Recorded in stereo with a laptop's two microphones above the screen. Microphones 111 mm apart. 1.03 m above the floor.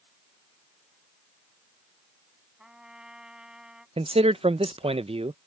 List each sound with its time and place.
2.6 s a trumpet: 5° right (ahead or behind)
4.0 s a man speaking: 60° right (ahead or behind)